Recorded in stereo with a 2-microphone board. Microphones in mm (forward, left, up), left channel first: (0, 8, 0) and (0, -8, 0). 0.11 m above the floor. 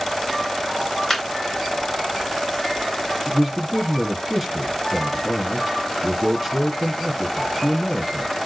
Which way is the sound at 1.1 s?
15° left (ahead or behind).